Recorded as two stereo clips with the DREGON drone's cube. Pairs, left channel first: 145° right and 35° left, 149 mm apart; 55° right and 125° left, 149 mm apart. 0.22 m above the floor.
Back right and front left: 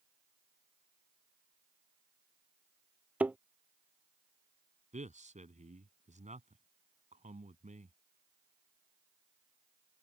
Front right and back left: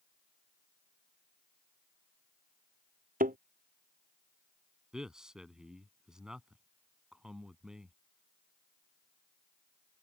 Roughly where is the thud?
Behind left.